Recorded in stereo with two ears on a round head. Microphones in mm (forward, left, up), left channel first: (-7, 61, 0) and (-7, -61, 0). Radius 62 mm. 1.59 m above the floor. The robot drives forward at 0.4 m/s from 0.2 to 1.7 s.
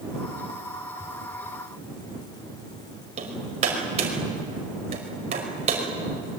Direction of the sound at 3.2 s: 50° right (ahead or behind).